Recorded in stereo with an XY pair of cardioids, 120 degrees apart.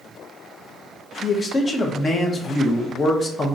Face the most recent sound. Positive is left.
turn(degrees=30)